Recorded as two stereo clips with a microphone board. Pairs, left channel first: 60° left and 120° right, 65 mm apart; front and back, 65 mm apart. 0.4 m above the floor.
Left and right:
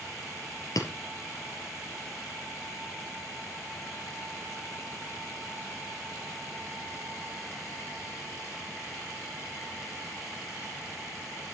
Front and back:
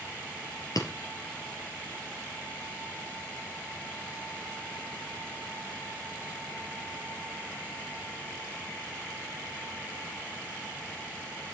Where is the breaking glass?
30° left, 4 m.